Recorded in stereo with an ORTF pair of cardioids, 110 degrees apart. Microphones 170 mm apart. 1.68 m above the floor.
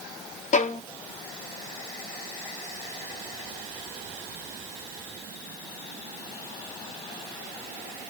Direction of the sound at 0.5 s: 45° left.